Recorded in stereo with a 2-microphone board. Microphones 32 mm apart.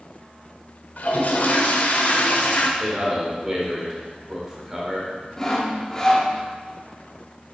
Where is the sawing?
20° left (ahead or behind), 0.8 m.